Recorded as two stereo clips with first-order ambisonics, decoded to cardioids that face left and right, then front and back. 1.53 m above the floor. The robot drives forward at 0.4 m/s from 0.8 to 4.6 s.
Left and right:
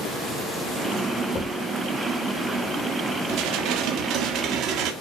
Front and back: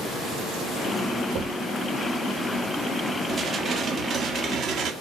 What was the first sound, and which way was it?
A thud, 150° left.